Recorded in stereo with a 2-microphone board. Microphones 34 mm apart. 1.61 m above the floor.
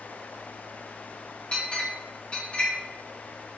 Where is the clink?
35° left (ahead or behind), 1.0 m.